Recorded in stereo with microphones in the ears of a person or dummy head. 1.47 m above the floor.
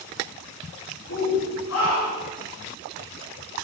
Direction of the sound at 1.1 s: 70° left (ahead or behind).